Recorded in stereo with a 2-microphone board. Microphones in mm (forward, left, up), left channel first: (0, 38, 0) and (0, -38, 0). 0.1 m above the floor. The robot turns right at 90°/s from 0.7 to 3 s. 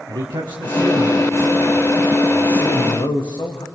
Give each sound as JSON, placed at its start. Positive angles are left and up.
{"t": 0.1, "sound": "a man speaking", "azimuth_deg": -100, "distance_m": 7.0}